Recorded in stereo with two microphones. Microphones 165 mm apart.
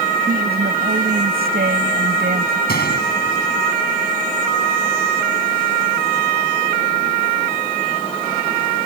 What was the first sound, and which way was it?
A woman speaking, 70° right (ahead or behind).